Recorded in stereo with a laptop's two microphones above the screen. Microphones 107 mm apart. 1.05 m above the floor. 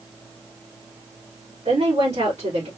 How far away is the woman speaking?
About 3 m.